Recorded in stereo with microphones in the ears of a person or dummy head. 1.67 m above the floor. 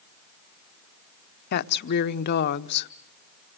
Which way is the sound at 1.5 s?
55° left (ahead or behind).